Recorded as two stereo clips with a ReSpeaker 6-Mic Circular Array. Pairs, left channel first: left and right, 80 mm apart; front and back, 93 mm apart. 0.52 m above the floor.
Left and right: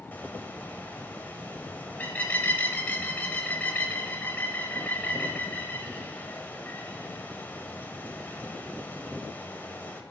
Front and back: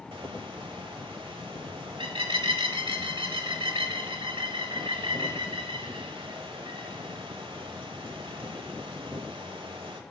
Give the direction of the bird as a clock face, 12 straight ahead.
7 o'clock.